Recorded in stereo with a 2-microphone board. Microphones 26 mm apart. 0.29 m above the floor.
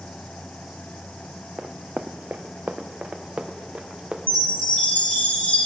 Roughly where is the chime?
Left.